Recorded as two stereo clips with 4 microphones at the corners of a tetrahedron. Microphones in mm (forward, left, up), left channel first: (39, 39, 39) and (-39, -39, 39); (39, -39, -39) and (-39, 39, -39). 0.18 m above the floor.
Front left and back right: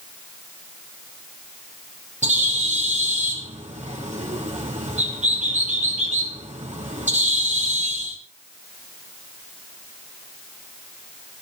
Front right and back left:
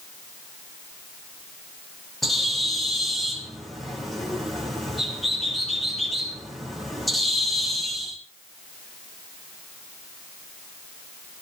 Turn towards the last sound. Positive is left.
turn(degrees=-135)